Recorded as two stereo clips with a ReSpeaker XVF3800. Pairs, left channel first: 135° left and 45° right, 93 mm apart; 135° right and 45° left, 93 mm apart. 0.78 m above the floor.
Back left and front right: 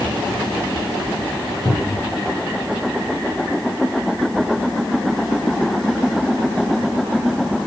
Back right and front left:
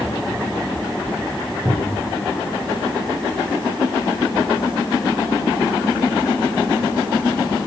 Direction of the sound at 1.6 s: 85° left.